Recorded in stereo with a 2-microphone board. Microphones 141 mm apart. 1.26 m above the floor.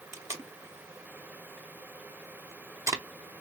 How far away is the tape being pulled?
About 0.7 m.